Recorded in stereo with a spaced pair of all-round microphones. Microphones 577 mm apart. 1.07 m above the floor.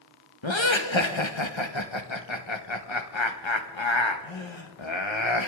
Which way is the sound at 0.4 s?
50° left (ahead or behind).